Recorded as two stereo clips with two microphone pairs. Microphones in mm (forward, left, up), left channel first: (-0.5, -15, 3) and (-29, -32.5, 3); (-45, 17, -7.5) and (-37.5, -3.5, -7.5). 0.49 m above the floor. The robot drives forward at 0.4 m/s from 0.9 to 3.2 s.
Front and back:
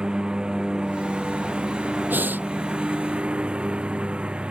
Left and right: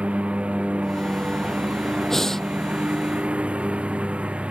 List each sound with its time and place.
0.0 s a lawn mower: 85° right; by 4.5 s 90° right
2.1 s breathing: 175° right